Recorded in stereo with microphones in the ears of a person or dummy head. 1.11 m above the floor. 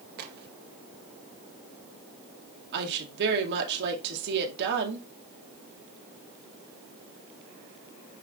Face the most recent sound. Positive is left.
turn(degrees=-60)  # may be behind; listen again after turning